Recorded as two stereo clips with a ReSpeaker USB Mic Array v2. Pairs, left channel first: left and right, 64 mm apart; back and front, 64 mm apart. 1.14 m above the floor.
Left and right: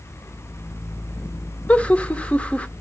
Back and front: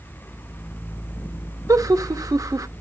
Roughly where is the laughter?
Ahead.